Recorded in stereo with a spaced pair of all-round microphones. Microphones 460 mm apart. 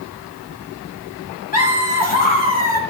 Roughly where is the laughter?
Centre.